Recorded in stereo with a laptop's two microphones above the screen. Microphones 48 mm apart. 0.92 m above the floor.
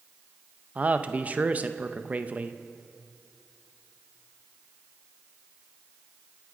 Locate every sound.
0.8 s a man speaking: 35° right (ahead or behind), 0.6 m